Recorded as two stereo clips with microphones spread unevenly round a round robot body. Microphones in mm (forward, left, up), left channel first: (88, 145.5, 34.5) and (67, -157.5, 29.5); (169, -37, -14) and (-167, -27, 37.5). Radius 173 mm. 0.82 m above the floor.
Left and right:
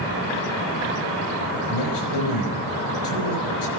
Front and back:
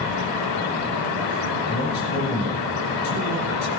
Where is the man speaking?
75° left, 4.5 m.